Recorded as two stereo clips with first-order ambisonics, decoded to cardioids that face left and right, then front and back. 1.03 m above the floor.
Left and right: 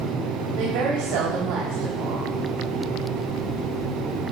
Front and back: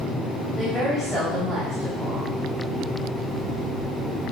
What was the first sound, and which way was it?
A woman speaking, 85° right.